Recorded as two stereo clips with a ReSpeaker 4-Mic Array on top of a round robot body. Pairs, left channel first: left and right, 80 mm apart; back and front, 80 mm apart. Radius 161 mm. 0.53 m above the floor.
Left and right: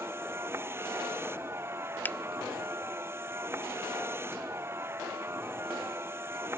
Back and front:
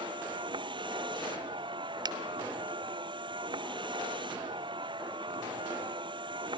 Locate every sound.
0.0 s a vehicle: 25° right
2.0 s a finger snap: 25° left